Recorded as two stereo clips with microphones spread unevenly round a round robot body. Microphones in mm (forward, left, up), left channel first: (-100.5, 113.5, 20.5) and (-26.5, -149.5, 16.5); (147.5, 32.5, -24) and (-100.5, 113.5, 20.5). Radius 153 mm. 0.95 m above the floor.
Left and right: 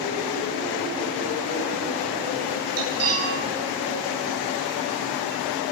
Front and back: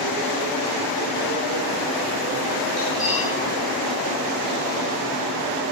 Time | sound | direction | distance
2.8 | cutlery clinking | 110° right | 10 m